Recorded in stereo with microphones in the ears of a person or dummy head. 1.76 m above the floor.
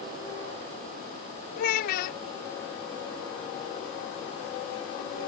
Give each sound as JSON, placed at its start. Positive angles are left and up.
{"t": 1.6, "sound": "a child speaking", "side_deg": 55}